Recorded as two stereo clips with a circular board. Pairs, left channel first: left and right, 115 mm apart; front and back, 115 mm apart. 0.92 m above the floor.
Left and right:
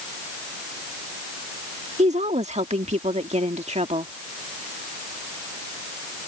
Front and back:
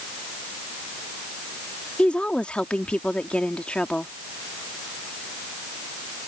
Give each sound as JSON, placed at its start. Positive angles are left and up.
{"t": 2.0, "sound": "a woman speaking", "azimuth_deg": -80}